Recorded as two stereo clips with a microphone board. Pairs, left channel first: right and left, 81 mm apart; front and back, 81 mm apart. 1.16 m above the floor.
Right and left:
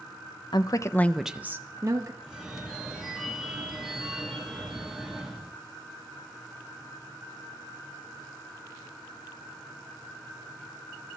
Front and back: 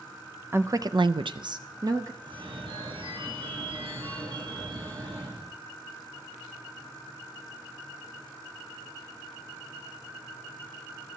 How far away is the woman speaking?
About 0.7 m.